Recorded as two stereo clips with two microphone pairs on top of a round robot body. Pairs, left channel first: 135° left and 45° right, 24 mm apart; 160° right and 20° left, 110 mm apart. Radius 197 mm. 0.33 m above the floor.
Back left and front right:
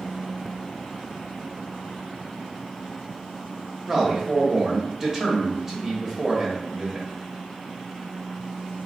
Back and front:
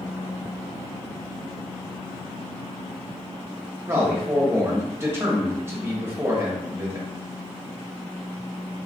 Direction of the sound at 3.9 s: 15° left.